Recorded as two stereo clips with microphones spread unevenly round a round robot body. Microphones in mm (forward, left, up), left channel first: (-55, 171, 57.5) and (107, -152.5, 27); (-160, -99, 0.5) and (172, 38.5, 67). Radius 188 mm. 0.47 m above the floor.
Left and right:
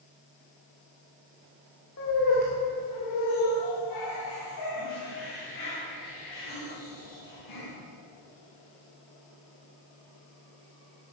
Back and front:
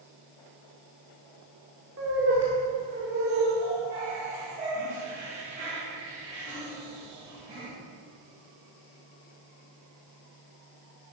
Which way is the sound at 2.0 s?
80° left.